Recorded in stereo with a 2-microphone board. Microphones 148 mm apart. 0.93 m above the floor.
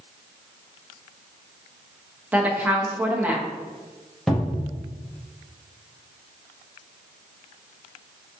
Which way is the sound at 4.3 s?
5° left (ahead or behind).